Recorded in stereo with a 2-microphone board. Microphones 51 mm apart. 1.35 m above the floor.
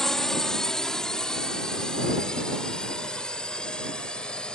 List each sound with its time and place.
0.0 s a drone: 10° left (ahead or behind); by 4.5 s 20° left (ahead or behind)